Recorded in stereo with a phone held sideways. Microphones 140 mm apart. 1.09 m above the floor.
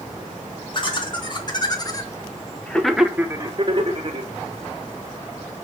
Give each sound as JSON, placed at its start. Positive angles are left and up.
{"t": 0.7, "sound": "laughter", "side_deg": 35, "distance_m": 2.0}